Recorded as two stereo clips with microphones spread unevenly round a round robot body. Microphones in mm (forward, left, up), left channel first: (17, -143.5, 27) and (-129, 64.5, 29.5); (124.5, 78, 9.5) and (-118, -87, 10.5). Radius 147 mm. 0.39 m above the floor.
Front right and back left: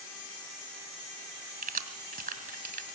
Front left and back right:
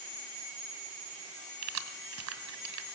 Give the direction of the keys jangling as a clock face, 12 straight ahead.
6 o'clock.